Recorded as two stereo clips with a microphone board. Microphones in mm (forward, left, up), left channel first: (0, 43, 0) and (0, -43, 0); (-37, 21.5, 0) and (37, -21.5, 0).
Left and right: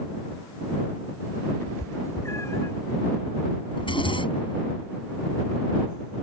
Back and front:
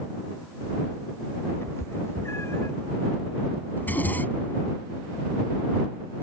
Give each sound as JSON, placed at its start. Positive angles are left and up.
{"t": 1.6, "sound": "a cat meowing", "azimuth_deg": 120}
{"t": 3.8, "sound": "a zipper", "azimuth_deg": 80}